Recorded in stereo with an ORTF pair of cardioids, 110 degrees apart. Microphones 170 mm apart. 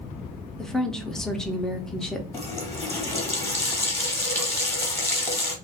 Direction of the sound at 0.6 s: 5° left.